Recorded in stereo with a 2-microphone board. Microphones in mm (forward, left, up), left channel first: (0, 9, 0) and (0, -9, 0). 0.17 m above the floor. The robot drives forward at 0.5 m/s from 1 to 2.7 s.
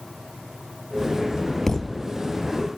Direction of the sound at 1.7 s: 25° left (ahead or behind).